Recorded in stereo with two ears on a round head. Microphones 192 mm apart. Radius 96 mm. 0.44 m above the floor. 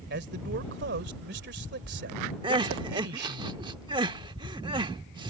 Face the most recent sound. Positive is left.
turn(degrees=-20)  # may be behind; listen again after turning